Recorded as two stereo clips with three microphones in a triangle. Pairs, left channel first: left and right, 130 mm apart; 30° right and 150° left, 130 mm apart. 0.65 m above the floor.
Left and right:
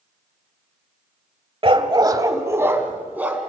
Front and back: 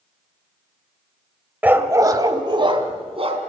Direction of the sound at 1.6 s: 135° right.